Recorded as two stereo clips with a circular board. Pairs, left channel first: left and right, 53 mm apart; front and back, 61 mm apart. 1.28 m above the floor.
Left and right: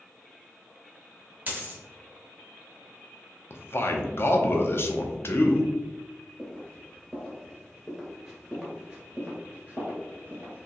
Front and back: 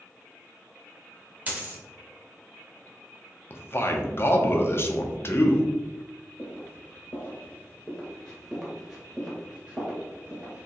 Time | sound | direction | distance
1.5 | a dropped coin | 135° right | 0.9 m
3.5 | a man speaking | 45° left | 0.6 m
6.4 | footsteps | 30° left | 1.7 m